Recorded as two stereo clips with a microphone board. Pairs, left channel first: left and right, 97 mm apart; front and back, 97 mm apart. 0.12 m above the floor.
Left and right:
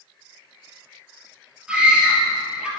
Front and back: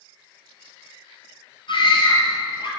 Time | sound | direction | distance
1.7 | a scream | 10° right | 2.5 m